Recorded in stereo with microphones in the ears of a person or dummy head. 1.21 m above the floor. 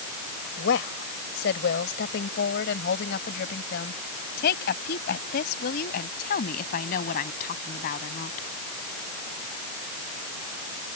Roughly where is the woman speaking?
Left.